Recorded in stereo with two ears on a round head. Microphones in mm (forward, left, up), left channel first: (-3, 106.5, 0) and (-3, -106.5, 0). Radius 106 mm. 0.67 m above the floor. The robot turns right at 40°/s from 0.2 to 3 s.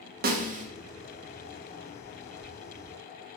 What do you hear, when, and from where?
0.2 s a snare drum: 40° right (ahead or behind), 1.0 m; by 0.7 s 30° right (ahead or behind), 1.0 m